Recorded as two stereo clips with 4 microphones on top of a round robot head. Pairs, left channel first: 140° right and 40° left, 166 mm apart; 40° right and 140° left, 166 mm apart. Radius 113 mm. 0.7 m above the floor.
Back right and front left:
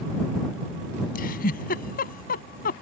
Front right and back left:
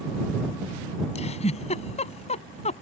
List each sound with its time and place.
1.1 s a giggle: 95° right